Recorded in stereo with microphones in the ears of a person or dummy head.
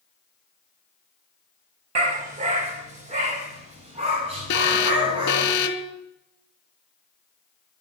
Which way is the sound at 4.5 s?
55° left (ahead or behind).